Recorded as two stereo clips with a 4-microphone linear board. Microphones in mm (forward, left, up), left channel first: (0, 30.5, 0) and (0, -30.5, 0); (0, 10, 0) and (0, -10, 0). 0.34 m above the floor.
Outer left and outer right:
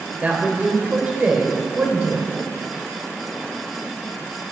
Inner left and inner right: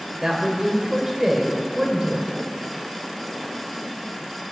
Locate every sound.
0.2 s a man speaking: 25° right (ahead or behind), 1.0 m